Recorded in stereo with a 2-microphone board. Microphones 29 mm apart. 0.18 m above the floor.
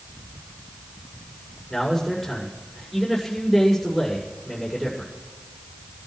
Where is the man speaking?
10° left (ahead or behind), 7 m.